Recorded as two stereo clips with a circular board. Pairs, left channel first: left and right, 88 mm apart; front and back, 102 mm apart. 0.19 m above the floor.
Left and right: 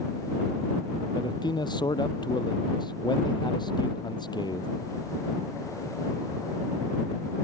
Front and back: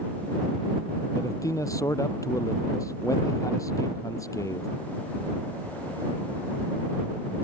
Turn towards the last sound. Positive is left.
turn(degrees=60)